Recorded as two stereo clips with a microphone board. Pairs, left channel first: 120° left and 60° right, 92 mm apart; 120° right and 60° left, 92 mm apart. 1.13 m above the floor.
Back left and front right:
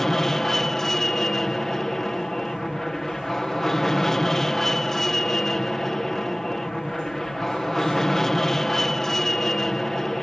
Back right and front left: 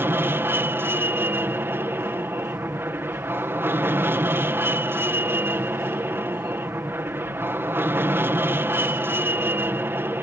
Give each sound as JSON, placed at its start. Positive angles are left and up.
{"t": 0.0, "sound": "an aircraft", "azimuth_deg": 40}